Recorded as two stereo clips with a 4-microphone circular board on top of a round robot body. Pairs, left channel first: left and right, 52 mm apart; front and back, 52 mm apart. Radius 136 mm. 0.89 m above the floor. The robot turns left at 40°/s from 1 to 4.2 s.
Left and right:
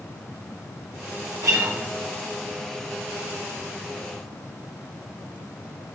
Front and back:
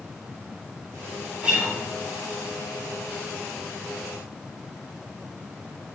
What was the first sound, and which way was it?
A guitar, 110° right.